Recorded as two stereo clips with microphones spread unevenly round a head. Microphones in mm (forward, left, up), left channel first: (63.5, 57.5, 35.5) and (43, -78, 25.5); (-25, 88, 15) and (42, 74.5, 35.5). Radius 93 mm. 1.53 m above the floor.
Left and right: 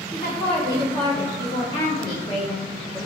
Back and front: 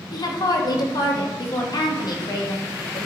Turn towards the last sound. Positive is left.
turn(degrees=150)